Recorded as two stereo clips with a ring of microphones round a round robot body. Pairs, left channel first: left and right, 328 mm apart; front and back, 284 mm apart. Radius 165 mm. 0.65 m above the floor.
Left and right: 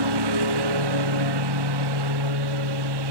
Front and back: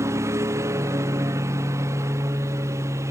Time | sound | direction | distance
0.0 | a lawn mower | 100° right | ?